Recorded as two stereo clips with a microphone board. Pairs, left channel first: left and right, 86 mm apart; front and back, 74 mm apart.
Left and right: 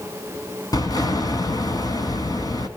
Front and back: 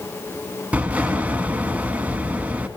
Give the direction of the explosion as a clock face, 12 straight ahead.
8 o'clock.